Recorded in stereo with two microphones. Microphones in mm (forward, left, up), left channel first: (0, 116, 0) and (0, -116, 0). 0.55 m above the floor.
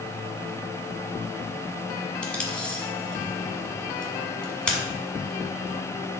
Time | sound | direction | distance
2.2 | tape being pulled | 5° left (ahead or behind) | 1.3 m